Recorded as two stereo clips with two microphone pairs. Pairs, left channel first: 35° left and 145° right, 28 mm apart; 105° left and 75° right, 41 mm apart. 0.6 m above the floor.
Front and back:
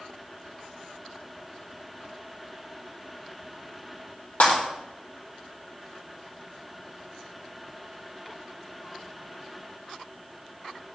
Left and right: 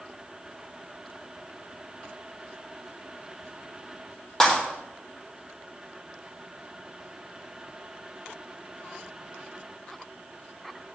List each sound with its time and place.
4.4 s breaking glass: 25° left, 4 m